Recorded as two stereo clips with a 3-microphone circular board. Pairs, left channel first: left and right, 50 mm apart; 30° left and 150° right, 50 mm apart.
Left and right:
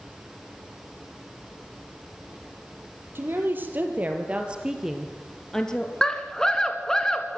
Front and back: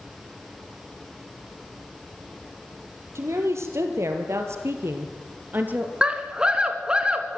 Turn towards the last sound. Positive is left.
turn(degrees=155)